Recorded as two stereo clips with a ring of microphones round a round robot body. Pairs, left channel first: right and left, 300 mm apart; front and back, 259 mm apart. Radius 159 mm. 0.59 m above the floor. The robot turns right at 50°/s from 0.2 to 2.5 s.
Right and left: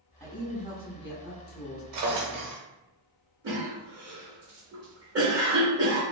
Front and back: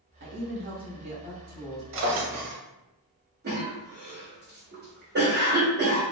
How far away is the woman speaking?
About 0.9 m.